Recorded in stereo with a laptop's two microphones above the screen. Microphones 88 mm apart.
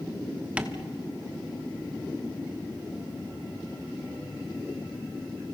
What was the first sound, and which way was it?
Tapping, 15° right (ahead or behind).